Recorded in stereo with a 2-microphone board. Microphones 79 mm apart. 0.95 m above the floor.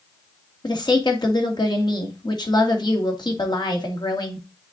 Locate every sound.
0.6 s a woman speaking: 60° left (ahead or behind), 2.0 m